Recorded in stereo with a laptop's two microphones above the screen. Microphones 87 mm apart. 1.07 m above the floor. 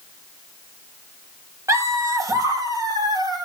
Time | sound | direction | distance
1.7 | laughter | 35° right (ahead or behind) | 1.7 m